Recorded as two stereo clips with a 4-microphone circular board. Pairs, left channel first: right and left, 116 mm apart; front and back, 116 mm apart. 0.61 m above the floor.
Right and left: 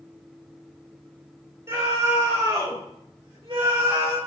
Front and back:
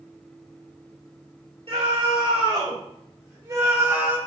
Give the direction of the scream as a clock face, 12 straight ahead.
7 o'clock.